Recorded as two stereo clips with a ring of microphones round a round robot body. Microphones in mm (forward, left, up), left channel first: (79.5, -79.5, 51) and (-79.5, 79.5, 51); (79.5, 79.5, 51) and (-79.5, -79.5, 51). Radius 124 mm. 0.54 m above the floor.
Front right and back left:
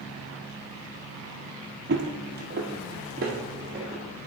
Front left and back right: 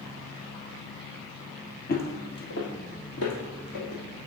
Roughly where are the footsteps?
Left.